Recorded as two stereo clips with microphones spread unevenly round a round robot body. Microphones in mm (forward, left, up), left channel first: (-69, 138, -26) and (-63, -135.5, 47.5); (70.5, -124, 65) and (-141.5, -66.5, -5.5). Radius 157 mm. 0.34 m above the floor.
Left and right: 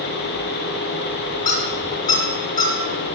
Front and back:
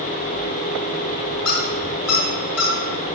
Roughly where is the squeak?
Ahead.